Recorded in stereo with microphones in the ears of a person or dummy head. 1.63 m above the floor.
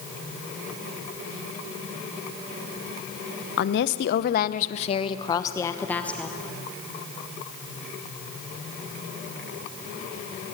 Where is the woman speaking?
60° left (ahead or behind), 1.0 m; by 6.4 s 10° left (ahead or behind), 1.5 m.